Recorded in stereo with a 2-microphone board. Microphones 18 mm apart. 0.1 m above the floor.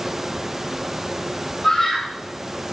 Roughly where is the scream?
Centre.